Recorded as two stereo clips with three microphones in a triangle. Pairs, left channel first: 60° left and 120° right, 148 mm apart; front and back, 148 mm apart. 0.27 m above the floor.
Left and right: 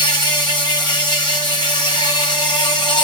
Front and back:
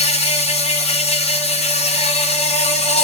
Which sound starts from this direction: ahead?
An insect, at 0.0 s.